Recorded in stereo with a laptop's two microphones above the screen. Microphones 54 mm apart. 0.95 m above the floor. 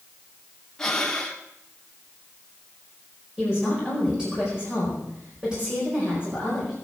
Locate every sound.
0.8 s breathing: 10° left (ahead or behind), 1.3 m
3.4 s a woman speaking: 15° right (ahead or behind), 5 m